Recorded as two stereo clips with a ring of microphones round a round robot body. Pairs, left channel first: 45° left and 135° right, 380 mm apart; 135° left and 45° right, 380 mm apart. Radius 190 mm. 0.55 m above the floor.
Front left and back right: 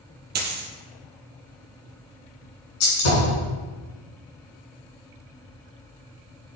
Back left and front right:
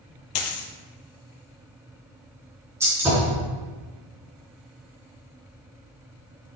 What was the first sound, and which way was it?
A dropped coin, 160° left.